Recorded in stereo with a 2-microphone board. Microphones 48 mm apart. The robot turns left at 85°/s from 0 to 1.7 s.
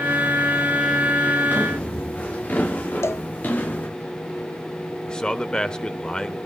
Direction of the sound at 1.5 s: 45° left (ahead or behind).